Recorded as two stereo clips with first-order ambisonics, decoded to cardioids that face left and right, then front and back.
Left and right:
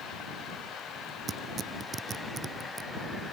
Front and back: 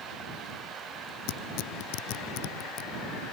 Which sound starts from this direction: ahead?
Tearing paper, at 1.3 s.